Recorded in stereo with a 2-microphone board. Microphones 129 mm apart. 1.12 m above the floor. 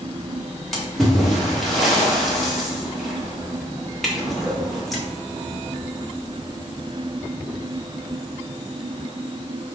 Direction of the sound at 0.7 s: Centre (ahead or behind).